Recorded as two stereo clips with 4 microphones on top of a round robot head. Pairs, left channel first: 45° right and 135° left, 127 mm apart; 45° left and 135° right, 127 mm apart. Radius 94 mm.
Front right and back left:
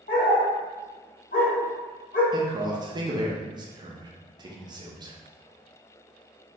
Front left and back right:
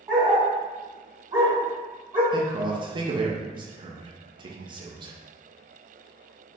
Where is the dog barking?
75° right, 1.9 m.